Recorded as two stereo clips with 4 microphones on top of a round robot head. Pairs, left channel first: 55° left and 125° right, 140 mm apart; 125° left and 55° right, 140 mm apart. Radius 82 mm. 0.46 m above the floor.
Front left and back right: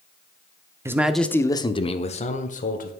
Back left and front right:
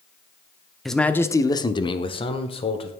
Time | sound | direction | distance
0.8 | a man speaking | 145° right | 0.9 m